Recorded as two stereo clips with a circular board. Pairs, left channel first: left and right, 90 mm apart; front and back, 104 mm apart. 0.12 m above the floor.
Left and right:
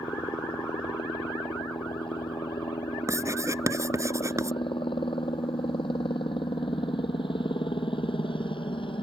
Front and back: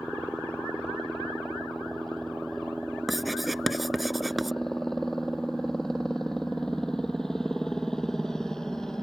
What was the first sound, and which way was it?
A helicopter, 90° left.